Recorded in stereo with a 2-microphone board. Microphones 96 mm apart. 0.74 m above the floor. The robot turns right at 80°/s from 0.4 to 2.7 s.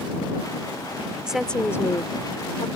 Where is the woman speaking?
10° right; by 2.7 s 105° left.